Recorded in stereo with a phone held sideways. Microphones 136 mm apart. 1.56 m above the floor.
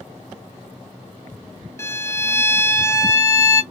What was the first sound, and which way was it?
A violin, 20° left (ahead or behind).